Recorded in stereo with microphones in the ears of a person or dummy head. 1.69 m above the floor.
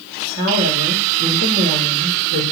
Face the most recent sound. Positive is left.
turn(degrees=-60)  # may be behind; listen again after turning